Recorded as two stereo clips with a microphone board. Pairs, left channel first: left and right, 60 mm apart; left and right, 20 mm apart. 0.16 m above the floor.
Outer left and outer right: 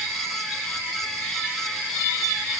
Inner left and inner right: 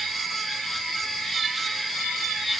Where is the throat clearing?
I don't hear throat clearing.